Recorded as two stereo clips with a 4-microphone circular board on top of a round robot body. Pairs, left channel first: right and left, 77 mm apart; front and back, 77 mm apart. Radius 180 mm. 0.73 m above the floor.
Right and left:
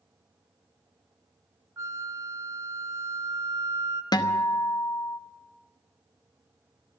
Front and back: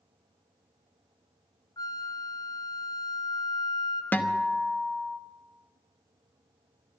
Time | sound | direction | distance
1.8 | a flute | 35° left | 1.4 m
4.1 | a guitar | 65° right | 1.2 m